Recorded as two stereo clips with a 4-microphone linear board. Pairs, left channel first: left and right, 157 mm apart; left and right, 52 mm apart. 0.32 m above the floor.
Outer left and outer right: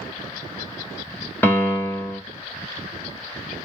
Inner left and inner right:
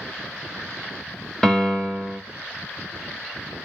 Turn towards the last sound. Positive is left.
turn(degrees=10)  # may be behind; listen again after turning